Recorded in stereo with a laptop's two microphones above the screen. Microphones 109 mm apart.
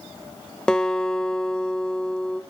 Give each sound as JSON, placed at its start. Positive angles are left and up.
{"t": 0.7, "sound": "a guitar", "side_deg": 5, "distance_m": 0.8}